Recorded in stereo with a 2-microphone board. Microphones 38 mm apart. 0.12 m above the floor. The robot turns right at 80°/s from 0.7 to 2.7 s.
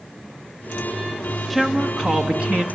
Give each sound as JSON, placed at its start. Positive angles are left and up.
{"t": 1.5, "sound": "a woman speaking", "side_deg": 0, "distance_m": 1.6}